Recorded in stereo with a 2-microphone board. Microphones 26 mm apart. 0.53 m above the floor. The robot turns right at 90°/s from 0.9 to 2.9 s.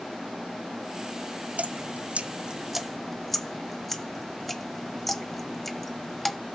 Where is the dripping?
70° right (ahead or behind), 1.0 m; by 6.4 s 10° left (ahead or behind), 1.0 m.